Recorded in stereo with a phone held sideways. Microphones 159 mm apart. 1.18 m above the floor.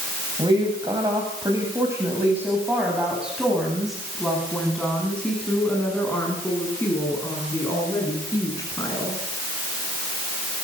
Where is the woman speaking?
30° right (ahead or behind), 8.5 m; by 9.2 s 20° left (ahead or behind), 16.5 m.